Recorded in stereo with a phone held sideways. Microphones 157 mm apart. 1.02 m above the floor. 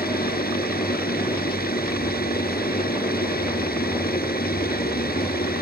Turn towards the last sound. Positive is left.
turn(degrees=85)